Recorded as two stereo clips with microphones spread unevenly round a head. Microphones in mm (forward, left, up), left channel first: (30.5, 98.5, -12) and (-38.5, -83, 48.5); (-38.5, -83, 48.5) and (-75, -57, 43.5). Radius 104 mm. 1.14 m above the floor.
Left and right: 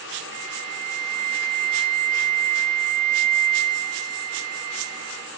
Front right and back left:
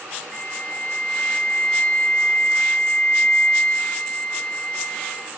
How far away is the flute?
About 2 m.